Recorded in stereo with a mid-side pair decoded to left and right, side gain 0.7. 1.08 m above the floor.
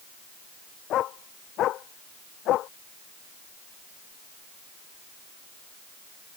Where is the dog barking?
50° left.